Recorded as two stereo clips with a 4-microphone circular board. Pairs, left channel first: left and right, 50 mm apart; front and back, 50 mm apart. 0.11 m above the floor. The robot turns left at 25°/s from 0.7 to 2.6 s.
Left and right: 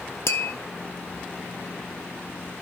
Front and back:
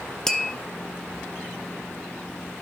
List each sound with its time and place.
0.3 s tapping: 80° left, 0.5 m